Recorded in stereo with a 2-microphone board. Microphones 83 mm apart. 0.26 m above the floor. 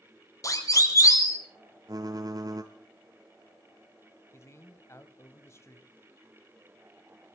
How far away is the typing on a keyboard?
About 1.1 m.